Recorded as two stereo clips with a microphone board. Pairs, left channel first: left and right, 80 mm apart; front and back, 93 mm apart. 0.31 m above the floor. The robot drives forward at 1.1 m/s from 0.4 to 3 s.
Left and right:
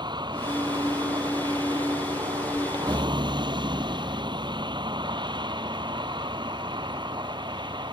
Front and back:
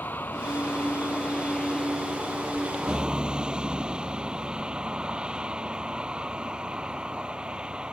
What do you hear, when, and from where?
0.0 s a vehicle: 70° right; by 7.9 s 100° right